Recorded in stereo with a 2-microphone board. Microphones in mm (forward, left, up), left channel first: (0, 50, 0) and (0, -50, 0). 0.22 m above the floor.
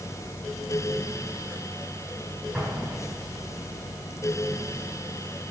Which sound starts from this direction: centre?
An explosion, at 2.5 s.